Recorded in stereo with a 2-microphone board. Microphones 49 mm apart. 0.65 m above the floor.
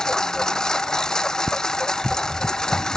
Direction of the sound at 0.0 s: 15° left (ahead or behind).